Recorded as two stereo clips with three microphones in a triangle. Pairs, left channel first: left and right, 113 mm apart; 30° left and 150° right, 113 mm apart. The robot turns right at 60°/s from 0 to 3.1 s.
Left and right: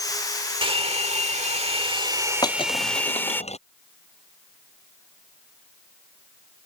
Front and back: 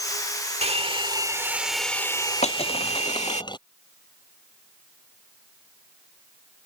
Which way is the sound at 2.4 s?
35° left.